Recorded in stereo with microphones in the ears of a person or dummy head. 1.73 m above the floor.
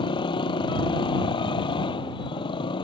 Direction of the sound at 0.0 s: 20° left (ahead or behind).